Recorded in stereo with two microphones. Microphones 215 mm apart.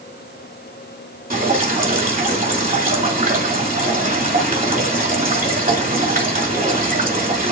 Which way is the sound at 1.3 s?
40° right (ahead or behind).